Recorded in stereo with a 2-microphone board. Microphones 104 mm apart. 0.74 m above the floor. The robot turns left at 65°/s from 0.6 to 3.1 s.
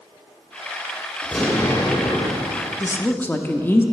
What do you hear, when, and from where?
1.2 s an explosion: 175° right, 1.0 m; by 2.7 s 90° left, 1.0 m
2.8 s a woman speaking: 30° left (ahead or behind), 0.6 m; by 3.8 s 20° left (ahead or behind), 0.6 m